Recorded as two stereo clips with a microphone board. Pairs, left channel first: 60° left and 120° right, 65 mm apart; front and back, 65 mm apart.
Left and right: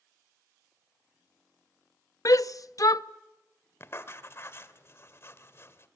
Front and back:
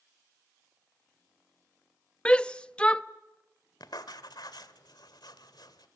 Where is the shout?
70° left, 0.7 m.